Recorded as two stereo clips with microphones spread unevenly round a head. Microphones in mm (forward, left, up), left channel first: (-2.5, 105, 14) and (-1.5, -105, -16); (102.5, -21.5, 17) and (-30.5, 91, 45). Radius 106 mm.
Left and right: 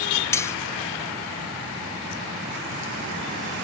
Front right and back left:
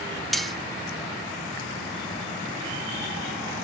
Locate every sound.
0.3 s cutlery clinking: 70° left, 0.5 m